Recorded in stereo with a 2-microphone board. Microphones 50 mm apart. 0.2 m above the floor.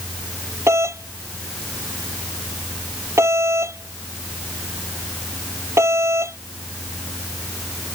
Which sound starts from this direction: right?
A doorbell, at 0.7 s.